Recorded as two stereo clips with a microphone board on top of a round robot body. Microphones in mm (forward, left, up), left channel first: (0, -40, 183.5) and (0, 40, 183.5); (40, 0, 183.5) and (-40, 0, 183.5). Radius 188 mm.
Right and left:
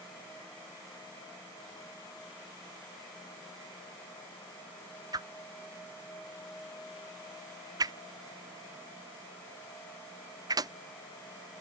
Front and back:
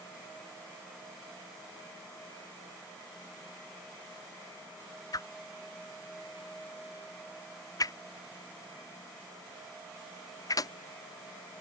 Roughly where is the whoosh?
Ahead left.